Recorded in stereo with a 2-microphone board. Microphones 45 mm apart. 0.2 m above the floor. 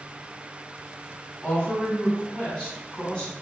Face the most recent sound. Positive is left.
turn(degrees=20)  # may be behind; listen again after turning